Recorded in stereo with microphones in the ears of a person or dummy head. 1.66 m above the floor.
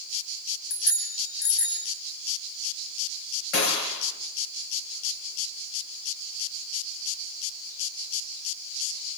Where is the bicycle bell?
60° left (ahead or behind), 7.5 m; by 1.9 s 65° left (ahead or behind), 9.5 m.